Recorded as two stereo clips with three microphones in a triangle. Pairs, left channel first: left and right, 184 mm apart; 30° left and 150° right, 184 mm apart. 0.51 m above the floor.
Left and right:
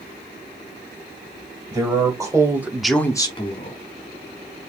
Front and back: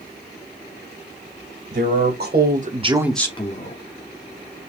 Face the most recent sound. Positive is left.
turn(degrees=40)